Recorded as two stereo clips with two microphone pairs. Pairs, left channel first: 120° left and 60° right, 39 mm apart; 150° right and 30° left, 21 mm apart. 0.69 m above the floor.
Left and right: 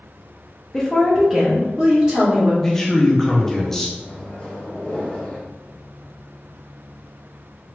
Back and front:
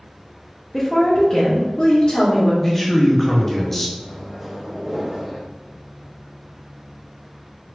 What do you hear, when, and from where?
0.7 s a woman speaking: 150° left, 0.7 m; by 2.5 s 115° right, 1.4 m
2.6 s a man speaking: 170° left, 0.7 m
4.0 s a microwave: 90° left, 0.9 m